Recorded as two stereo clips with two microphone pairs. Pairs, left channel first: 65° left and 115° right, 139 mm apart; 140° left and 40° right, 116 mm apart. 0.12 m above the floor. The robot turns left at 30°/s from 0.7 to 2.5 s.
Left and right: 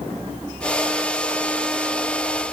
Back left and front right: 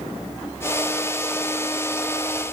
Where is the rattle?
I don't hear a rattle.